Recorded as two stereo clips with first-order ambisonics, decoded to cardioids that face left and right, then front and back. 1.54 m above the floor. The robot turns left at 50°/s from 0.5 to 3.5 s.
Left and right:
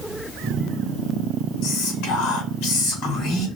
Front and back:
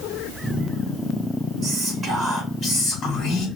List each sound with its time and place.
1.6 s whispering: 125° left, 1.9 m; by 3.5 s 35° left, 1.9 m